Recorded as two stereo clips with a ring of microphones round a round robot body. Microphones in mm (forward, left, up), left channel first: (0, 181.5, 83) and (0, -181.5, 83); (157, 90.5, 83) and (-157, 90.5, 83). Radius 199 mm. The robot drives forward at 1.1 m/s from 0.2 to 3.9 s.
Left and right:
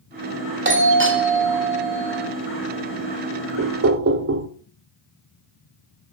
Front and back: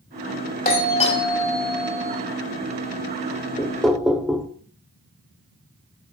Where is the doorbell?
45° right, 2.5 m; by 2.2 s 115° right, 2.5 m.